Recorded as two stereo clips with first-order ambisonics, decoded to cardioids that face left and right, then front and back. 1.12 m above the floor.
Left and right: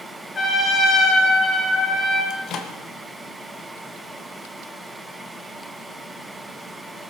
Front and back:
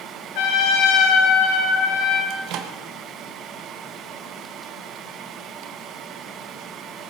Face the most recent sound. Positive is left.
turn(degrees=140)